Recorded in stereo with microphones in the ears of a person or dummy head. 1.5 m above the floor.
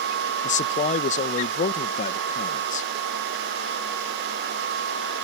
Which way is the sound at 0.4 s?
40° left (ahead or behind).